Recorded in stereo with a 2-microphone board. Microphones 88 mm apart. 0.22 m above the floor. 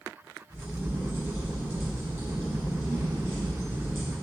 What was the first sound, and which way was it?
A crack, 30° right (ahead or behind).